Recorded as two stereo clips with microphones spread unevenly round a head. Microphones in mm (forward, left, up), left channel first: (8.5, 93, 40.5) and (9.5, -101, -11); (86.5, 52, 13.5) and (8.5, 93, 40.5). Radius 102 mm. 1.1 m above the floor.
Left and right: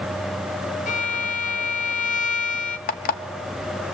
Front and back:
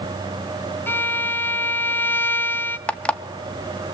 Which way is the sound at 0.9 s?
35° left.